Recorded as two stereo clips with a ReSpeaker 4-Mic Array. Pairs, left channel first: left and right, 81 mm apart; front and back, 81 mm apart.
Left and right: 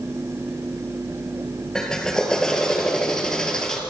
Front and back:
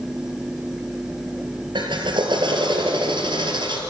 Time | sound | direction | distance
1.8 | a drill | 170° left | 3 m